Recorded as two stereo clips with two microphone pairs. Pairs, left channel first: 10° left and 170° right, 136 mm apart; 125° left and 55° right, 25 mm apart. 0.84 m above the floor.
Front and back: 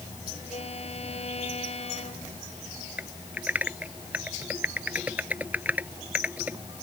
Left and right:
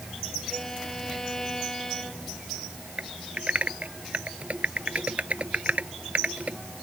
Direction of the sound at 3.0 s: 95° right.